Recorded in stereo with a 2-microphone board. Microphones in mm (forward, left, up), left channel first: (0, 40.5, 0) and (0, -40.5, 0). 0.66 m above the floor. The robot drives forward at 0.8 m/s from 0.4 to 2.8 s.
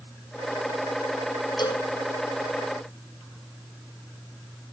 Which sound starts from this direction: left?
A cowbell, at 1.6 s.